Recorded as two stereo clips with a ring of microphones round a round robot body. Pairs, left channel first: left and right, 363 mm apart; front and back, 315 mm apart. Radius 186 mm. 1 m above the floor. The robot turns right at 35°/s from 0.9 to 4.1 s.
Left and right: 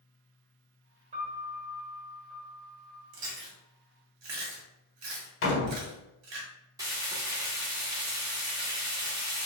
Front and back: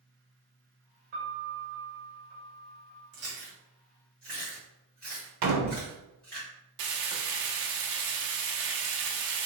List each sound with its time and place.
1.1 s a piano: 165° right, 1.6 m; by 3.0 s 95° right, 1.6 m
3.1 s chewing: 120° right, 2.0 m; by 6.4 s 85° right, 2.0 m
5.4 s a door slam: 145° left, 1.0 m
6.8 s frying: 170° right, 1.0 m